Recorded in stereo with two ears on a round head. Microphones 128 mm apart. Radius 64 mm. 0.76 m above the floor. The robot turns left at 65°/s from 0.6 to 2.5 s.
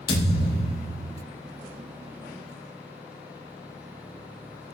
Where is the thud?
65° left, 6 m; by 1.2 s 30° left, 6 m.